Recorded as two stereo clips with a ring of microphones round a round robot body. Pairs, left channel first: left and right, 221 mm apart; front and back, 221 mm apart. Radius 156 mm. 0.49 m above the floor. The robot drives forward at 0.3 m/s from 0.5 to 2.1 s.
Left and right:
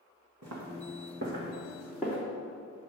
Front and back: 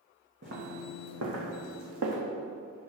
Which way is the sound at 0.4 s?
120° right.